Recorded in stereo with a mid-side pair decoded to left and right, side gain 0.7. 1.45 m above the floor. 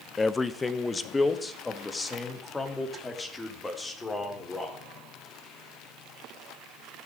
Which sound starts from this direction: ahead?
A man speaking, at 0.2 s.